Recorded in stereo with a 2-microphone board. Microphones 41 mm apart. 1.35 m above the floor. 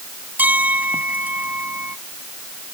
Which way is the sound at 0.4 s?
45° right (ahead or behind).